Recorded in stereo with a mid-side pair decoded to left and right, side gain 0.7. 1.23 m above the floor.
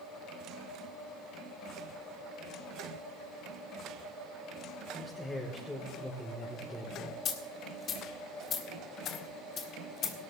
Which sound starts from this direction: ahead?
A man speaking, at 5.0 s.